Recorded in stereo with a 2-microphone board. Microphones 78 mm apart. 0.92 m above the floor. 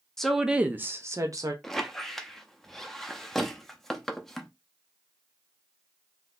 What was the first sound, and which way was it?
A woman speaking, 5° left (ahead or behind).